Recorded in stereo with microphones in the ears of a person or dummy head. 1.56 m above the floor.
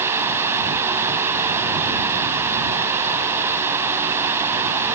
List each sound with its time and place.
0.0 s running water: 10° right (ahead or behind)